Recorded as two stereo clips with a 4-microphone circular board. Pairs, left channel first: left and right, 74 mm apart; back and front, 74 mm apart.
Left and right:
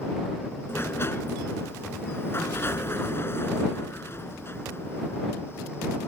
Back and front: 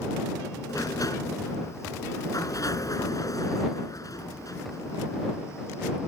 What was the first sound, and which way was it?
A sliding door, 145° left.